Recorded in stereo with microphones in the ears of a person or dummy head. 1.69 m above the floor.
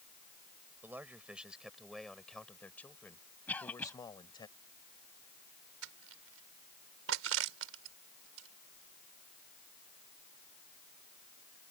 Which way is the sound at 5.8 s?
80° right.